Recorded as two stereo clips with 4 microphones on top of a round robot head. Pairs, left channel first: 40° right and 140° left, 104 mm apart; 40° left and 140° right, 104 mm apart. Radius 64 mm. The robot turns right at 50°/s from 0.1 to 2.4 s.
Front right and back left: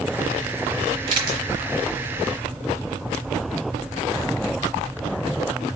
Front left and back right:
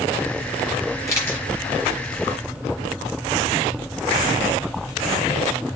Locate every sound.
1.1 s a camera shutter: 100° left, 1.0 m; by 1.5 s 120° left, 1.0 m